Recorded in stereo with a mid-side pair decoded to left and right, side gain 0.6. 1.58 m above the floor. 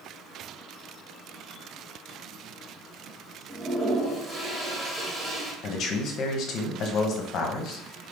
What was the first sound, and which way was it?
A toilet flushing, 20° right.